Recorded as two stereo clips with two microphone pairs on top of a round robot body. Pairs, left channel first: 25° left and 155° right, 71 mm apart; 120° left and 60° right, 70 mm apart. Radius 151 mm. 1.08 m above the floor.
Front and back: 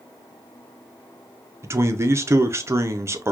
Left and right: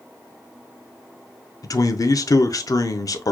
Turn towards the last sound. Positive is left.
turn(degrees=155)